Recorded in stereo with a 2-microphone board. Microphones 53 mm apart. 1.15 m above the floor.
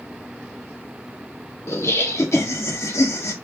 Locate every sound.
1.7 s laughter: 60° left (ahead or behind), 1.3 m